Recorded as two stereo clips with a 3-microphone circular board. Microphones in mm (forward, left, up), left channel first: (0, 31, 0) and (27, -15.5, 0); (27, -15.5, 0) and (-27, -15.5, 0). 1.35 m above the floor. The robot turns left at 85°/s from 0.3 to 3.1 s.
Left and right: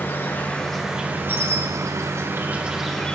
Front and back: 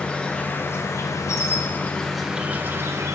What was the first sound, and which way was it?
An insect, 70° left.